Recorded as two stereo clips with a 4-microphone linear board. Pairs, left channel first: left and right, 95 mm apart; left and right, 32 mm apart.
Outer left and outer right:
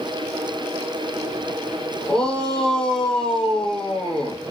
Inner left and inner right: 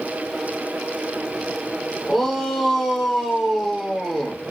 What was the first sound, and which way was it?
A shout, 5° left (ahead or behind).